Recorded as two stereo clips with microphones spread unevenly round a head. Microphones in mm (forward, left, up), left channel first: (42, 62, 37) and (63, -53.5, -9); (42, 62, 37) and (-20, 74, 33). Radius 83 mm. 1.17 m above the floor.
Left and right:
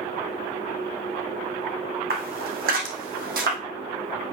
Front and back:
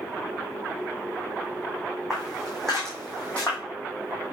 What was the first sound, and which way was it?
Footsteps, 100° right.